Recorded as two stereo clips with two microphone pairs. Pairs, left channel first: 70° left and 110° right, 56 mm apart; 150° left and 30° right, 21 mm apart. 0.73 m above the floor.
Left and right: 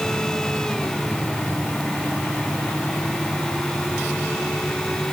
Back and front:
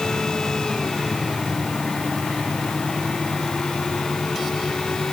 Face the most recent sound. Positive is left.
No sound to turn to.